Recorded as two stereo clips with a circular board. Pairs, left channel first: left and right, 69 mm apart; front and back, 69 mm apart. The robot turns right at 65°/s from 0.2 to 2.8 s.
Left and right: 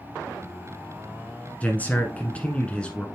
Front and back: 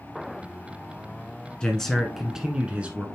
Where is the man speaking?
60° left, 1.1 m; by 3.1 s 140° left, 1.1 m.